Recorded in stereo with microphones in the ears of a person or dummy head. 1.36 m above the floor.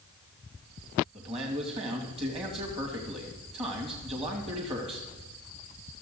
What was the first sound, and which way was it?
A man speaking, 25° right (ahead or behind).